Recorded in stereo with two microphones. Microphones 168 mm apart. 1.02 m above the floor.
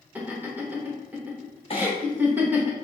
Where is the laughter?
10° right (ahead or behind), 1.0 m.